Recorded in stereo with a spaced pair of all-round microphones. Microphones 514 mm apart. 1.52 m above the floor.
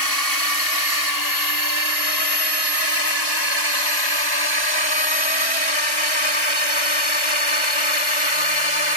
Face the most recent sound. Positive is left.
turn(degrees=70)  # may be behind; listen again after turning